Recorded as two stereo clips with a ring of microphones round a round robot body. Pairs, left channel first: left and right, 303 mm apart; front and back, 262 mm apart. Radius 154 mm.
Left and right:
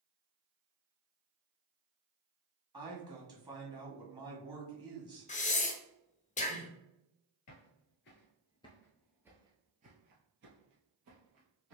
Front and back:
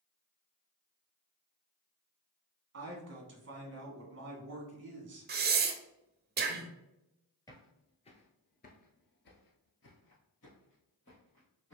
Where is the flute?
No flute in this recording.